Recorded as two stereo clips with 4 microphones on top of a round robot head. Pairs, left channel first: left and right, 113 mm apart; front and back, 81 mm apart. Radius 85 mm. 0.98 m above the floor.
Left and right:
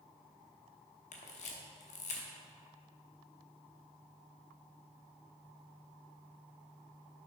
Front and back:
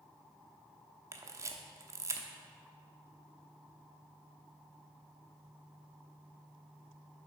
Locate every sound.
1.1 s a camera shutter: 130° left, 1.0 m